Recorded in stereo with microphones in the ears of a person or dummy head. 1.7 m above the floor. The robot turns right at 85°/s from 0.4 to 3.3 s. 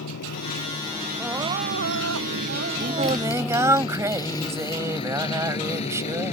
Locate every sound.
0.0 s a motorcycle: 60° left (ahead or behind); by 6.3 s 40° left (ahead or behind)
1.2 s crying: straight behind; by 3.8 s straight ahead
2.8 s singing: 60° right; by 6.3 s 15° right